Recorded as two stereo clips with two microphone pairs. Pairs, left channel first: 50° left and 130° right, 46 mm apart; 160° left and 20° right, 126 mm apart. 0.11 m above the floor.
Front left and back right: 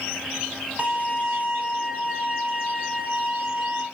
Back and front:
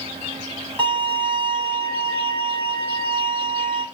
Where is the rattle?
No rattle in this recording.